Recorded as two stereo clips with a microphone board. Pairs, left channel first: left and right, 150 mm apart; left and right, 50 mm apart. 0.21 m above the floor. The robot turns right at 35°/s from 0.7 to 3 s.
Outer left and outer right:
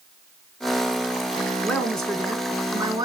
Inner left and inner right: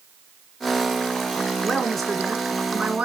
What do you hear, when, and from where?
1.6 s a woman speaking: 165° left, 2 m; by 3.0 s 145° right, 2 m